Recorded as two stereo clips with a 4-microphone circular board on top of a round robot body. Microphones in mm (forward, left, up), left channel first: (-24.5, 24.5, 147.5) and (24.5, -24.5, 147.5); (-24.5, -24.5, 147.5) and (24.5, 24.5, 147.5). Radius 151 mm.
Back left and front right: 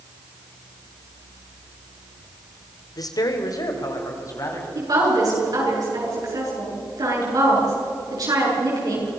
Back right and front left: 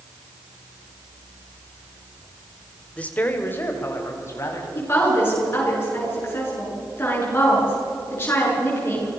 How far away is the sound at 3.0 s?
About 2 m.